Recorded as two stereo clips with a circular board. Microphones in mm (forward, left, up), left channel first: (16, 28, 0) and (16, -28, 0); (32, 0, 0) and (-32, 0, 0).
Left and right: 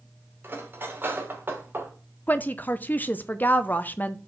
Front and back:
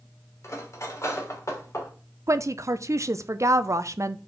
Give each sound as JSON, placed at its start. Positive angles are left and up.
{"t": 0.4, "sound": "cutlery clinking", "azimuth_deg": -40, "distance_m": 2.5}
{"t": 2.3, "sound": "a woman speaking", "azimuth_deg": 145, "distance_m": 0.5}